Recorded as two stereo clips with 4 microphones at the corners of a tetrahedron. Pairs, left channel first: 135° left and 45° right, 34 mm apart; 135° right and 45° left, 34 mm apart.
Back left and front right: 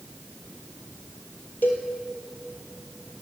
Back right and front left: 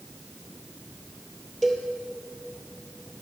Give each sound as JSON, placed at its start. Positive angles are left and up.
{"t": 1.6, "sound": "a cowbell", "azimuth_deg": 140, "distance_m": 2.0}